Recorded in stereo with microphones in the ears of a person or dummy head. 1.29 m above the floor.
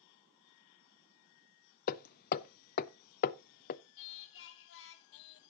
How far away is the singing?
About 0.8 m.